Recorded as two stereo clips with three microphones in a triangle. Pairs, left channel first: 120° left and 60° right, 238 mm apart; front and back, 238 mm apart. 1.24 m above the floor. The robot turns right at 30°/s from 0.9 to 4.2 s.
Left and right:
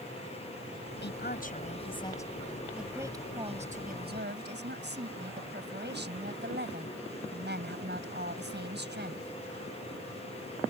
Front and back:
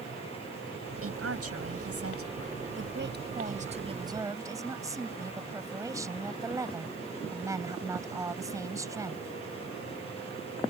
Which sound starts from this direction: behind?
A woman speaking, at 1.0 s.